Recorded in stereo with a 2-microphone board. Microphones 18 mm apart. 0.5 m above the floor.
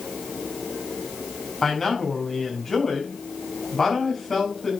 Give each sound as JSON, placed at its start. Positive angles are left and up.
{"t": 1.6, "sound": "a man speaking", "side_deg": 25, "distance_m": 5.5}